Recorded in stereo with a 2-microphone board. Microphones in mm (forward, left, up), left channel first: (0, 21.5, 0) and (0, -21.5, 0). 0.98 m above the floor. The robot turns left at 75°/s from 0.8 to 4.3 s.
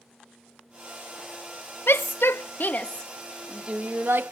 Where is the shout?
65° left (ahead or behind); by 4.3 s 65° right (ahead or behind).